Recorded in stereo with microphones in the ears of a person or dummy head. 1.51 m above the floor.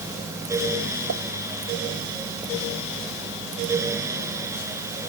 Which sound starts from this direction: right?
A pop, at 1.1 s.